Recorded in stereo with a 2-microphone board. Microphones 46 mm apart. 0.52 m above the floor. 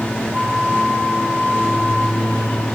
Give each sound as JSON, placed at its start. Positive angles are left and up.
{"t": 0.3, "sound": "a flute", "side_deg": -80, "distance_m": 5.5}